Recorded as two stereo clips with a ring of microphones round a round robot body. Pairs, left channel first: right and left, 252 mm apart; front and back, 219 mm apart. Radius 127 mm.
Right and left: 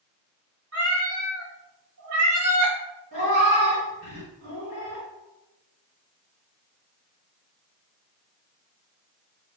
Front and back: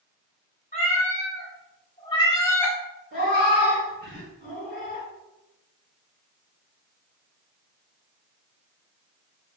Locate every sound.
0.7 s a cat meowing: 50° left, 1.6 m; by 2.8 s 85° left, 0.8 m
3.1 s a cat meowing: 40° left, 1.9 m